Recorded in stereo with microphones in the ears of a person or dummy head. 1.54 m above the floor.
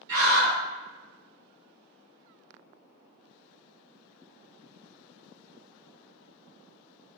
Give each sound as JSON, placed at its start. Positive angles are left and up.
{"t": 0.1, "sound": "a scream", "side_deg": -55, "distance_m": 2.0}